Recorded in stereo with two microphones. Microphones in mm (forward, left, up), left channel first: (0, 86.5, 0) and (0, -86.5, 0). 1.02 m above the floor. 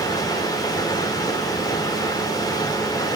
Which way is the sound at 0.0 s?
20° left (ahead or behind).